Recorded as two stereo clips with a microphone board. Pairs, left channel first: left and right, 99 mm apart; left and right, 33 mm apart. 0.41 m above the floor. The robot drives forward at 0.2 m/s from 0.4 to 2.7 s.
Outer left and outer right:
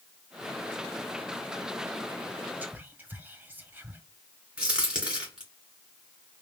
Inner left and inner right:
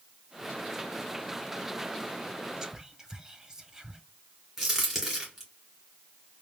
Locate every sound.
2.6 s whispering: 20° right (ahead or behind), 0.7 m
4.6 s a crack: 10° right (ahead or behind), 2 m